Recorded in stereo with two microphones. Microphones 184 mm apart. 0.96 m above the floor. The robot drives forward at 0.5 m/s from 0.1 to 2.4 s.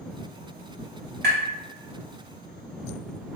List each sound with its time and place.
1.2 s tapping: 60° right (ahead or behind), 1.4 m; by 1.4 s 65° right (ahead or behind), 1.3 m